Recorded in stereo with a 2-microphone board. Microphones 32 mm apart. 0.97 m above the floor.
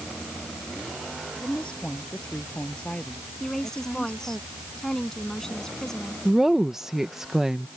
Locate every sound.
1.4 s a woman speaking: 35° left (ahead or behind)
3.4 s a woman speaking: 20° left (ahead or behind)
6.2 s a woman speaking: 15° right (ahead or behind)